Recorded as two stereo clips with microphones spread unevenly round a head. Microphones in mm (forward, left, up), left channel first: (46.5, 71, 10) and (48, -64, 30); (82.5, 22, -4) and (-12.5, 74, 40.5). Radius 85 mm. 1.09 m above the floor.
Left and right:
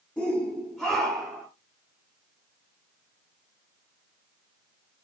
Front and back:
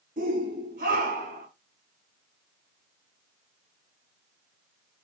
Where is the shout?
175° left, 2.5 m; by 1.5 s straight behind, 3.5 m.